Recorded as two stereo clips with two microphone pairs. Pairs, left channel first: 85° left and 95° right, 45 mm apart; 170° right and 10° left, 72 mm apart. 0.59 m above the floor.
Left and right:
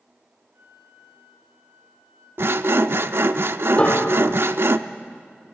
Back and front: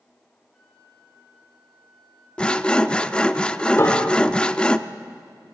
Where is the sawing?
100° right, 0.6 m.